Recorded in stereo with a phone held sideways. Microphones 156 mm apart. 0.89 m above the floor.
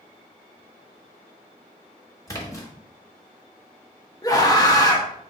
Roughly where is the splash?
Left.